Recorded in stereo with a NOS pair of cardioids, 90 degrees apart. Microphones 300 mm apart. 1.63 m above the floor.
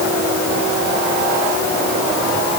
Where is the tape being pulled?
No tape being pulled in this recording.